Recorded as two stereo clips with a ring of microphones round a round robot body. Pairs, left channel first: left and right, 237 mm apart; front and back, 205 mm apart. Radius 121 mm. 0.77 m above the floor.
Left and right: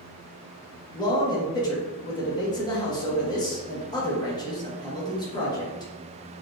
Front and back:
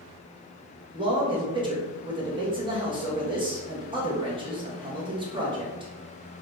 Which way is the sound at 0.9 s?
145° left.